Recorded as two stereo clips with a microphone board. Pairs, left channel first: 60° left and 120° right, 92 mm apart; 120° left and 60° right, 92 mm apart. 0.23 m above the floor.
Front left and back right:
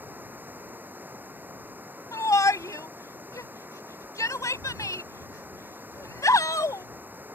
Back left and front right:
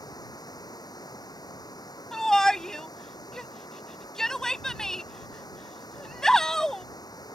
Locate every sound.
0.0 s running water: 165° left
2.1 s a shout: 40° left